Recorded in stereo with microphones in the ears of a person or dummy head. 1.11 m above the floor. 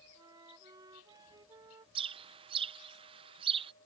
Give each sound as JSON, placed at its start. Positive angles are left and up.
{"t": 0.1, "sound": "a flute", "side_deg": -25}
{"t": 1.9, "sound": "a bird", "side_deg": -25}